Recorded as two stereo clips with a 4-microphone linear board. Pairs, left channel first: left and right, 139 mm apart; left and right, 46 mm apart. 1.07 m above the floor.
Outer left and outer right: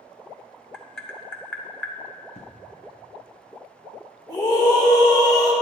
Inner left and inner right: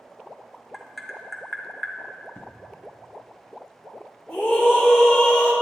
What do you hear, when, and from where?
0.7 s tapping: 5° left (ahead or behind), 1.0 m
2.4 s an explosion: 50° left (ahead or behind), 1.0 m
4.3 s a scream: 25° left (ahead or behind), 3 m